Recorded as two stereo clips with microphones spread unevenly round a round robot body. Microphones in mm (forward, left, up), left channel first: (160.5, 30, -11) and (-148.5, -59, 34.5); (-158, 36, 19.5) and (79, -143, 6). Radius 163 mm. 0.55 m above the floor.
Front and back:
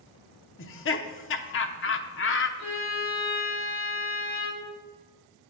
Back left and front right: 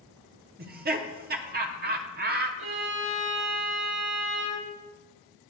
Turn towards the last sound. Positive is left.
turn(degrees=0)